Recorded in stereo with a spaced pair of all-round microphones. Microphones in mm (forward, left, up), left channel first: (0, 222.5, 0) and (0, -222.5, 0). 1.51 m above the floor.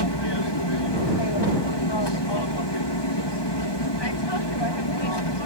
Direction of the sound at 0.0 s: 60° left (ahead or behind).